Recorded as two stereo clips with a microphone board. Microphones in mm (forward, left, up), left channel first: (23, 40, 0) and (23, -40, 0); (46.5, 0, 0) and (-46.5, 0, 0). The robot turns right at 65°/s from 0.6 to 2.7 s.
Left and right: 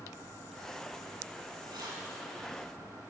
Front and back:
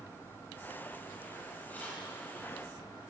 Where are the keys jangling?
75° right, 6.5 m; by 2.0 s 55° right, 6.5 m.